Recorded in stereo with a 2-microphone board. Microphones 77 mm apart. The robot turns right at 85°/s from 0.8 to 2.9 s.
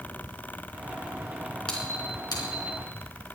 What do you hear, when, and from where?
1.7 s a squeak: 10° left (ahead or behind), 3.5 m; by 2.7 s 75° left (ahead or behind), 3.5 m